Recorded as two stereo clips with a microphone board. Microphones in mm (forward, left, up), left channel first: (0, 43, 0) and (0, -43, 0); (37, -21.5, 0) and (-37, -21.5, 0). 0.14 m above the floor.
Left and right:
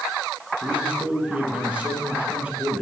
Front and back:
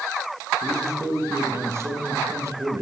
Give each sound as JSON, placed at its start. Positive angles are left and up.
{"t": 0.6, "sound": "a man speaking", "azimuth_deg": -160, "distance_m": 1.4}